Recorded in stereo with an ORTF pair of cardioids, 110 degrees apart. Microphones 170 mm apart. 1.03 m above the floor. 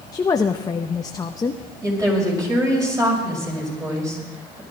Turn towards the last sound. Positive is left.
turn(degrees=-20)